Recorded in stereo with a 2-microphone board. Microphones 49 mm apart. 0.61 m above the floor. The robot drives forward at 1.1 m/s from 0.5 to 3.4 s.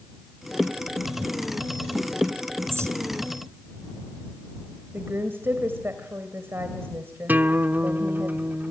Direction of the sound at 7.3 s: 40° right (ahead or behind).